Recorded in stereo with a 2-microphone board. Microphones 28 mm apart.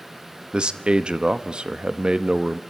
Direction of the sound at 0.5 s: 35° right (ahead or behind).